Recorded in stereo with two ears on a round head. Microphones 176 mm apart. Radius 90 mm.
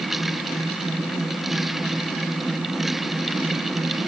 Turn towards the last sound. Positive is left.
No sound to turn to.